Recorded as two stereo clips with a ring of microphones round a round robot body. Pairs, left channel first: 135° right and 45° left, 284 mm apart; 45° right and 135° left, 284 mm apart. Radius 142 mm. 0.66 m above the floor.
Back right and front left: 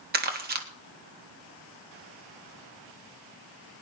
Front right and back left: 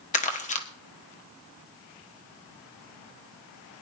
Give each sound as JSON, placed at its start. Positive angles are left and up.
{"t": 0.1, "sound": "crumpling", "azimuth_deg": 5, "distance_m": 1.5}